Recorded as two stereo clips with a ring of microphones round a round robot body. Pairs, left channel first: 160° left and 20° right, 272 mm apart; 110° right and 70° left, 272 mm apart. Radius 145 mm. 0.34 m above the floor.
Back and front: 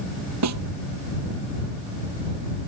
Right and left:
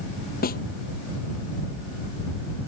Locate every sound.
0.4 s a snare drum: 55° right